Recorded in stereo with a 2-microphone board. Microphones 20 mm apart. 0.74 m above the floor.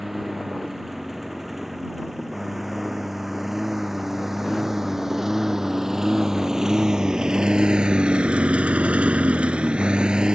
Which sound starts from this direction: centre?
A lawn mower, at 0.0 s.